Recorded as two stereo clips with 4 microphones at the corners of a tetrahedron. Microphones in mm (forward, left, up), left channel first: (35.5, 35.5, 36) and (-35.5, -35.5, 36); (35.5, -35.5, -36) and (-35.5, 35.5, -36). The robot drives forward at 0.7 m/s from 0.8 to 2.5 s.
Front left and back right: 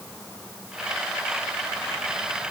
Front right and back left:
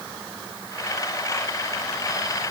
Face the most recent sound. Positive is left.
No sound to turn to.